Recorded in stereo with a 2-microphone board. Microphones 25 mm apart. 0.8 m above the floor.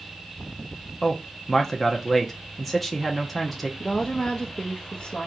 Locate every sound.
1.0 s a man speaking: 5° left (ahead or behind), 0.8 m
3.8 s a woman speaking: 40° left (ahead or behind), 0.7 m